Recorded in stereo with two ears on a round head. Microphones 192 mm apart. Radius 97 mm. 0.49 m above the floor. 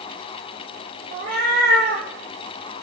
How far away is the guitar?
No guitar in this recording.